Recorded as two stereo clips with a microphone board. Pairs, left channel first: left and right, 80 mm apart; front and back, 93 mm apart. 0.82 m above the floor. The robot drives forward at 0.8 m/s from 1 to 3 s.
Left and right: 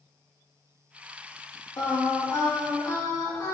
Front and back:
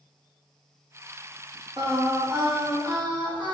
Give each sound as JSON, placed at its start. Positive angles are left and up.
{"t": 1.8, "sound": "singing", "azimuth_deg": 130, "distance_m": 2.0}